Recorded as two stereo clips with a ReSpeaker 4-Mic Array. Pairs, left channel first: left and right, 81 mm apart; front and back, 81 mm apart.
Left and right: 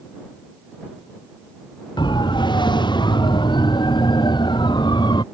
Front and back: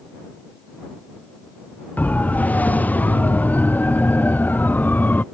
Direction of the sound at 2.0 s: 70° left.